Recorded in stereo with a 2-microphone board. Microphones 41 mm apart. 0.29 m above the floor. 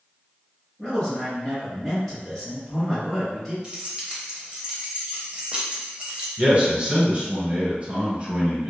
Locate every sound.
0.8 s a man speaking: 5° left (ahead or behind), 1.6 m
3.6 s keys jangling: 25° right (ahead or behind), 0.6 m
6.4 s a man speaking: 35° right (ahead or behind), 1.4 m